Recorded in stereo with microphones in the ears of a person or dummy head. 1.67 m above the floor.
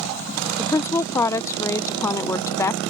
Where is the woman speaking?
15° left (ahead or behind).